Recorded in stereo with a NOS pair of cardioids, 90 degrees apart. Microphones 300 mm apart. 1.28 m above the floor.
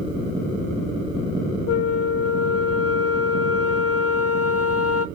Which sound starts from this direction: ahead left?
A flute, at 1.7 s.